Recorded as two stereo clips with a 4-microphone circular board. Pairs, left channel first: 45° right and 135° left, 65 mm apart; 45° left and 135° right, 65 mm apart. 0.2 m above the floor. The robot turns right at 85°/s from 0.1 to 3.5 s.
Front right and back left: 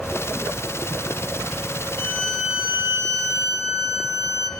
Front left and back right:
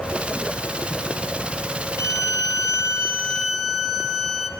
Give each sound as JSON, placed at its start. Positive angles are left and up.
{"t": 2.0, "sound": "a violin", "azimuth_deg": 5, "distance_m": 2.5}